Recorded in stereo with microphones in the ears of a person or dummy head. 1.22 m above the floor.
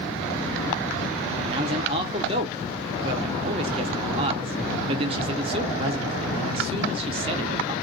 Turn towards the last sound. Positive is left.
turn(degrees=-25)  # may be behind; listen again after turning